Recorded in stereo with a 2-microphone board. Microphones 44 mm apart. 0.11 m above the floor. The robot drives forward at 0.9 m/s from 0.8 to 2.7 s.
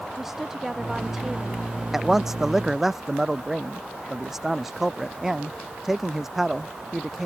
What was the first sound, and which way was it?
A woman speaking, 10° right (ahead or behind).